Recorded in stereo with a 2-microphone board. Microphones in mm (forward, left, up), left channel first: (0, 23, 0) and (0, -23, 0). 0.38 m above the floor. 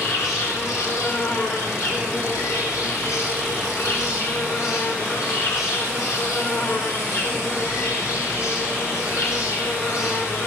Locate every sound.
0.0 s an insect: 90° left, 6.5 m